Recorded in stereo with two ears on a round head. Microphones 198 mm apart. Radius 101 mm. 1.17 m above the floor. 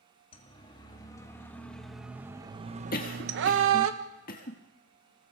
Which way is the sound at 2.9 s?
40° left (ahead or behind).